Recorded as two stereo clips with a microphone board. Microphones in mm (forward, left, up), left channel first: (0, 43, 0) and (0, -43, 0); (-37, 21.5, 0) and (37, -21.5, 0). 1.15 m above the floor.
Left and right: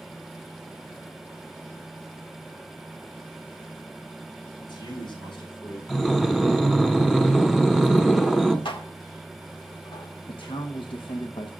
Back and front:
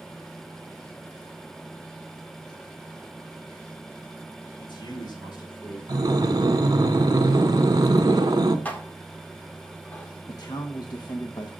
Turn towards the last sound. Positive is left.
turn(degrees=110)